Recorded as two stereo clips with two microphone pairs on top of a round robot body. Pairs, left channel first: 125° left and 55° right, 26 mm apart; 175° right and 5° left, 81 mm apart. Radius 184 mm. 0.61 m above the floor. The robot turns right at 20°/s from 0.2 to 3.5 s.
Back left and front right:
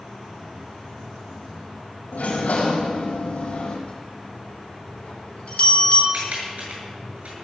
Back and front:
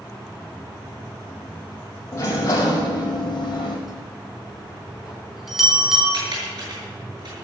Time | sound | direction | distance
2.1 | a sliding door | 125° left | 4.5 m
3.9 | a bell | 95° left | 3.5 m
6.1 | typing on a keyboard | 20° right | 7.5 m